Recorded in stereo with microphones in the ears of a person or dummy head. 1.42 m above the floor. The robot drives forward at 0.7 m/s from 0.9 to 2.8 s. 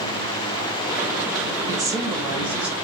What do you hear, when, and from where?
1.7 s a woman speaking: 25° right (ahead or behind), 0.5 m; by 2.8 s 10° right (ahead or behind), 1.2 m